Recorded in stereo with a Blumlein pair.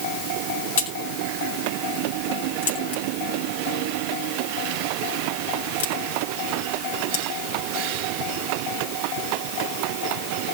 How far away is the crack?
About 4.5 m.